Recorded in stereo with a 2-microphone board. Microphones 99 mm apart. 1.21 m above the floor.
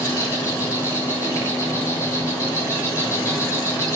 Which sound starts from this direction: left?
An insect, at 0.0 s.